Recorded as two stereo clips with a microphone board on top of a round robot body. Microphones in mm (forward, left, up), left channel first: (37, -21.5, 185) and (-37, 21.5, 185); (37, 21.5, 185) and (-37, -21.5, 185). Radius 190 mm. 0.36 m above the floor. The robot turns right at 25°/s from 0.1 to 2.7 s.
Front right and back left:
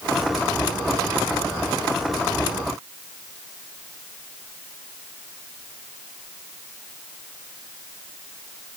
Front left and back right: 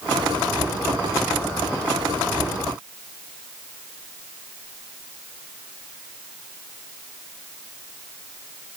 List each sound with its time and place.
Only background noise.